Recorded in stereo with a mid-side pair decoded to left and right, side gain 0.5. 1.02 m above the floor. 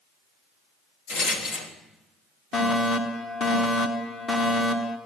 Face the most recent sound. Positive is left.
turn(degrees=45)